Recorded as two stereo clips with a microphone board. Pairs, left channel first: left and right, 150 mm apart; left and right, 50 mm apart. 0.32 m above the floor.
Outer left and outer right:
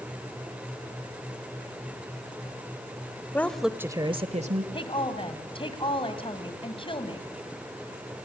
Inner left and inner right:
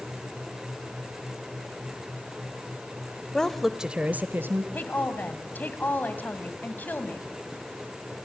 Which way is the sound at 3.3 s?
15° left (ahead or behind).